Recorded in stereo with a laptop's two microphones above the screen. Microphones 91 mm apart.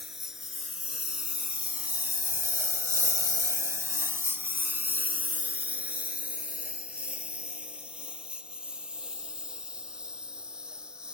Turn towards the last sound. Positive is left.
turn(degrees=-10)  # may be behind; listen again after turning